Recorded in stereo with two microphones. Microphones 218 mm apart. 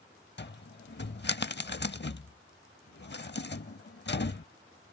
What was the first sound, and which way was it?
A cupboard door, 55° left (ahead or behind).